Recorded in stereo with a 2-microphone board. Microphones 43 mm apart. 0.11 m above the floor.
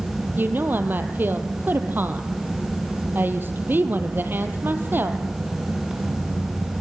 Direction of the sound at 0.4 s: 50° right (ahead or behind).